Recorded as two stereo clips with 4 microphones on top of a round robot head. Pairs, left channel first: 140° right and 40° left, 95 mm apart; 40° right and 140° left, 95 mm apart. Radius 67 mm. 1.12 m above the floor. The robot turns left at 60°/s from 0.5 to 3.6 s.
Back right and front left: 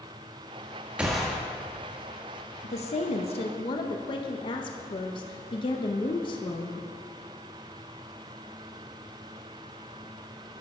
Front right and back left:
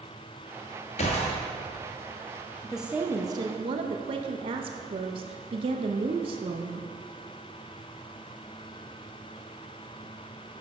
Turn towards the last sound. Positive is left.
turn(degrees=175)